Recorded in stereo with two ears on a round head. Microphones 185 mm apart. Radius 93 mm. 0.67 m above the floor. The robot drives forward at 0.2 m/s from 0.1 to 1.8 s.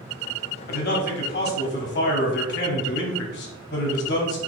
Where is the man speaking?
50° left (ahead or behind), 1.4 m; by 4.4 s 55° left (ahead or behind), 1.3 m.